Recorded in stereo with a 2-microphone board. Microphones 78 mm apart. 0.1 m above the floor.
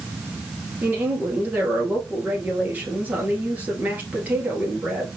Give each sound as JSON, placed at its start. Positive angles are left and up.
{"t": 0.8, "sound": "a woman speaking", "side_deg": -20, "distance_m": 2.0}